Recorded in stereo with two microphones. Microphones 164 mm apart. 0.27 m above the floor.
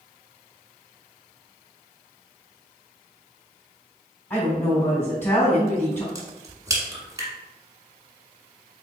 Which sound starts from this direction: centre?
A woman speaking, at 4.3 s.